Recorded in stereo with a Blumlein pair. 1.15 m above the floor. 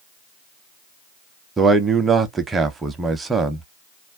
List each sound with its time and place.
1.6 s a man speaking: 15° right, 0.7 m